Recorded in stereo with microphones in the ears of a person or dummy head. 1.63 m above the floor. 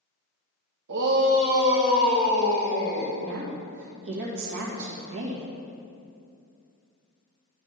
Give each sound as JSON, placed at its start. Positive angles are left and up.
{"t": 0.9, "sound": "a shout", "side_deg": -65, "distance_m": 0.9}
{"t": 3.2, "sound": "a woman speaking", "side_deg": -70, "distance_m": 1.7}